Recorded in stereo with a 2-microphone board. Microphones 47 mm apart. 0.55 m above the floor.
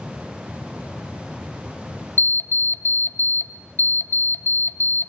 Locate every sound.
2.2 s an alarm clock: 50° left (ahead or behind), 0.5 m